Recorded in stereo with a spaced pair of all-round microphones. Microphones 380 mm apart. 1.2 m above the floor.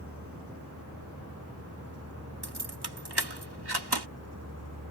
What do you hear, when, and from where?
0.0 s a vehicle: 35° right (ahead or behind); by 4.9 s 40° right (ahead or behind)
2.4 s keys jangling: 70° right (ahead or behind)